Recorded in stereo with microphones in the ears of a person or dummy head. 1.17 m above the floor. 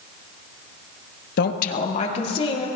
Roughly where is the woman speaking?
Left.